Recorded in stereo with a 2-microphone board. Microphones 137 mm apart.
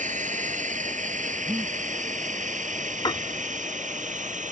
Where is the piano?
30° left (ahead or behind).